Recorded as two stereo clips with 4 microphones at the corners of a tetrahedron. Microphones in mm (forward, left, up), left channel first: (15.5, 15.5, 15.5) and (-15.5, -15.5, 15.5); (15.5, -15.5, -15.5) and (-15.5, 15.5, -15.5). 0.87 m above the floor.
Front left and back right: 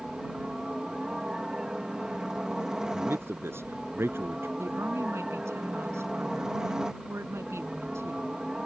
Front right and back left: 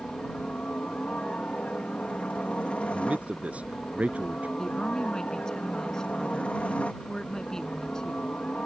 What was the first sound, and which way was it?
A helicopter, 70° right.